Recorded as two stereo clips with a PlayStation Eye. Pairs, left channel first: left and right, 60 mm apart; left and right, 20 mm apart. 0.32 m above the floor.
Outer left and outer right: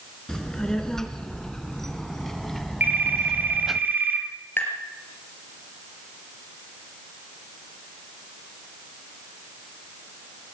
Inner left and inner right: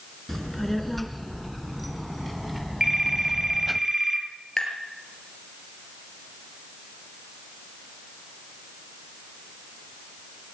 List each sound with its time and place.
0.3 s a child speaking: 5° left (ahead or behind), 3.5 m; by 3.8 s 5° right (ahead or behind), 1.3 m
2.8 s a phone ringing: 30° right (ahead or behind), 4 m
4.6 s tapping: 35° left (ahead or behind), 5.5 m